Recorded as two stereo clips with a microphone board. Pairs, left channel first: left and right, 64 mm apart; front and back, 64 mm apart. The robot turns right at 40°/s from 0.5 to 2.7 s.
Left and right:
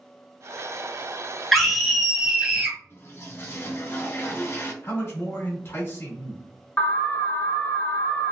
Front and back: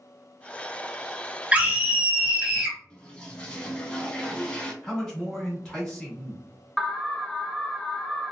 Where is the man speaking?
75° left, 1.6 m.